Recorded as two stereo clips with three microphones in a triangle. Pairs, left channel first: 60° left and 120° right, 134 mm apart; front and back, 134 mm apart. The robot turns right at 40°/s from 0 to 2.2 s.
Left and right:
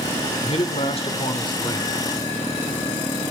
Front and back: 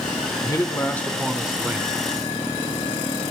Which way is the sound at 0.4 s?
55° left.